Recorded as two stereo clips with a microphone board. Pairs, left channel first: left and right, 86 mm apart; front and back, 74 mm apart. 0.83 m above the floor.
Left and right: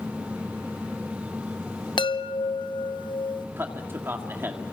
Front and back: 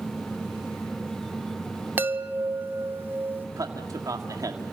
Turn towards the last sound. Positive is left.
turn(degrees=-150)